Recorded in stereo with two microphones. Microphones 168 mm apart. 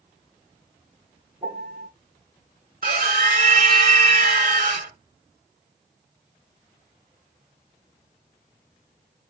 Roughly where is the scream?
Right.